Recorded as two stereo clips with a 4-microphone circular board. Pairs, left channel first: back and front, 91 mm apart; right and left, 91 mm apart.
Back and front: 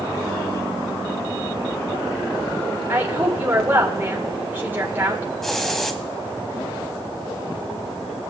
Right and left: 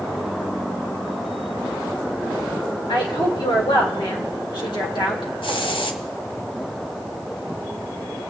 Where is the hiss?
95° right, 1.0 m.